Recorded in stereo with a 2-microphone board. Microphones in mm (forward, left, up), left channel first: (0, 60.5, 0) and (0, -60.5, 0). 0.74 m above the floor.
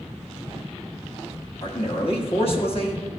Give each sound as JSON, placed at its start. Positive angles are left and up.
{"t": 1.6, "sound": "a man speaking", "side_deg": 50, "distance_m": 1.4}